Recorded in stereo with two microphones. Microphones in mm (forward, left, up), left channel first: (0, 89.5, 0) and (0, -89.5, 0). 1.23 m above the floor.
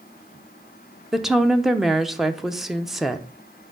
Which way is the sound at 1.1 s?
Centre (ahead or behind).